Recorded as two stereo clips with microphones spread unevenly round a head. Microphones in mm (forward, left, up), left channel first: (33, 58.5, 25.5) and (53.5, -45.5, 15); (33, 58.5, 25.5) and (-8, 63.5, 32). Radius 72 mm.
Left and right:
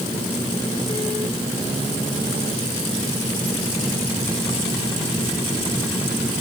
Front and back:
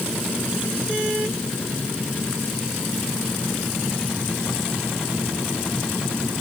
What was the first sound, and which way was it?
Only background noise.